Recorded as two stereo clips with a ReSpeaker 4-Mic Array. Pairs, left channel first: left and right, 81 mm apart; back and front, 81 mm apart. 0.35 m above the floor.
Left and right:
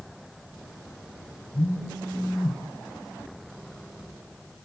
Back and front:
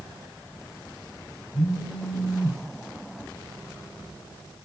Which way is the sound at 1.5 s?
140° left.